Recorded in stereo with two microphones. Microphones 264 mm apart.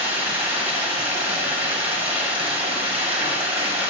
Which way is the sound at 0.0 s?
5° right (ahead or behind).